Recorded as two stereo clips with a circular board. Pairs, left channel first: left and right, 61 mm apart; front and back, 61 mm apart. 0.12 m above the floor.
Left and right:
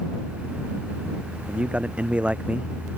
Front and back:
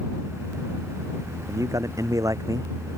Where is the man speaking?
160° right.